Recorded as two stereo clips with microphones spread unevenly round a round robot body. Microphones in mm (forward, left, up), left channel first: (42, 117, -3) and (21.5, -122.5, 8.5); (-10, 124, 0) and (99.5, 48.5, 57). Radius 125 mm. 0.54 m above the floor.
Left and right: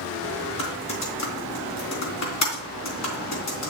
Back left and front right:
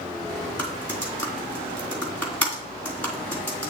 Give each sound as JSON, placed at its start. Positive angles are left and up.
{"t": 0.6, "sound": "typing on a keyboard", "azimuth_deg": 70, "distance_m": 3.0}